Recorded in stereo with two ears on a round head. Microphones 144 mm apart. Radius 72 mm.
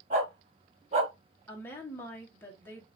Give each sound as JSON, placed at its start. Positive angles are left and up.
{"t": 0.1, "sound": "a dog barking", "side_deg": -45, "distance_m": 2.5}
{"t": 1.5, "sound": "a woman speaking", "side_deg": 10, "distance_m": 1.8}